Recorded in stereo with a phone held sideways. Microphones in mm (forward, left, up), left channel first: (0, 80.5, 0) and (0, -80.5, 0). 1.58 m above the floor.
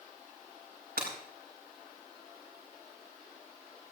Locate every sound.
1.0 s breaking glass: 80° right, 6 m